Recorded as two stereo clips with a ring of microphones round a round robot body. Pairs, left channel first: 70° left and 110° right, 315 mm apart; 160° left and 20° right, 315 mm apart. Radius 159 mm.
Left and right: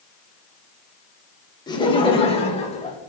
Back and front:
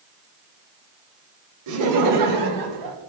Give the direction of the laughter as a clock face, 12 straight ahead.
12 o'clock.